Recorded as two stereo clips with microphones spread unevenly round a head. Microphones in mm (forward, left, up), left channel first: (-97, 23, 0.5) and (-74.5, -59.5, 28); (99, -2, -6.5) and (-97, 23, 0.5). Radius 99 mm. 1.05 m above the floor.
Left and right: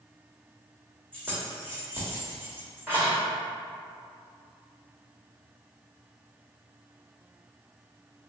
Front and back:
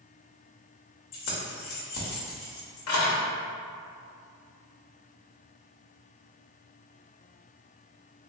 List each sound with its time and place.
1.1 s keys jangling: straight ahead, 0.9 m